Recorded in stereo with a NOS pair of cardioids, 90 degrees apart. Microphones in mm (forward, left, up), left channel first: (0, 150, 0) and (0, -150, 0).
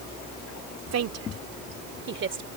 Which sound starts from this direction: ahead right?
A woman speaking, at 0.9 s.